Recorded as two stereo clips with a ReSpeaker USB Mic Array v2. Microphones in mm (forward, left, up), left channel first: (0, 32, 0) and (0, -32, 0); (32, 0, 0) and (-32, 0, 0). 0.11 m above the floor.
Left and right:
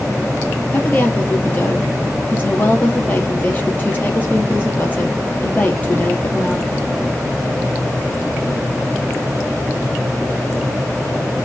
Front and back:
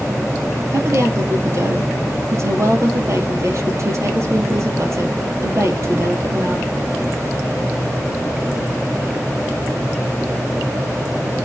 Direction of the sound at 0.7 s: 150° left.